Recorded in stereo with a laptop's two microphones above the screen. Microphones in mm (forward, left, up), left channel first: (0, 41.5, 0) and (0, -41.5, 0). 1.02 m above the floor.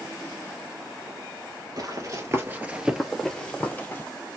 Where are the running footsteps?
45° right (ahead or behind), 1.4 m; by 4.0 s 25° left (ahead or behind), 1.6 m.